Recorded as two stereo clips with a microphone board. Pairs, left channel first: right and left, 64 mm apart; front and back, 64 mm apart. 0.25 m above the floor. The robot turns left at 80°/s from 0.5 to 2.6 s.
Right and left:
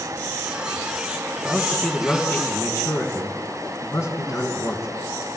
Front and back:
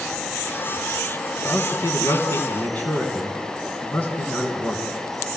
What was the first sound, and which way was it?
A man speaking, 40° left.